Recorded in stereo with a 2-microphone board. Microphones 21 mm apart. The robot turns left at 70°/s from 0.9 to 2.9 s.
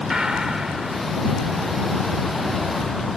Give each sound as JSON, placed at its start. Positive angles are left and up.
{"t": 0.1, "sound": "a gunshot", "side_deg": -30}